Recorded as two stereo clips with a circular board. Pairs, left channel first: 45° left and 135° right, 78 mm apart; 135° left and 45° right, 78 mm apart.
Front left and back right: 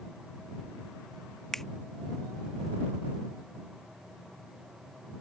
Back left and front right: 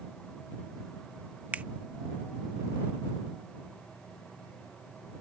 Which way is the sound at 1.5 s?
30° right.